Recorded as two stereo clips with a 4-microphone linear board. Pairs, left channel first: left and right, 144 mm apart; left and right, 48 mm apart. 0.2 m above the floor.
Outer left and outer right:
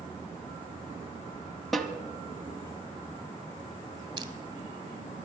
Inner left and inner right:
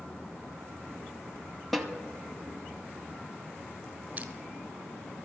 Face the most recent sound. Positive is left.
turn(degrees=-30)  # may be behind; listen again after turning